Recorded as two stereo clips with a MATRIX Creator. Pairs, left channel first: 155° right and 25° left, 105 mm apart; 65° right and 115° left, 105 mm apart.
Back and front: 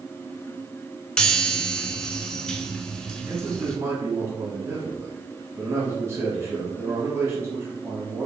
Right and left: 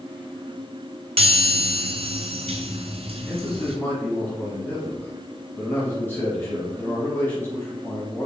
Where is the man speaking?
15° right, 1.2 m.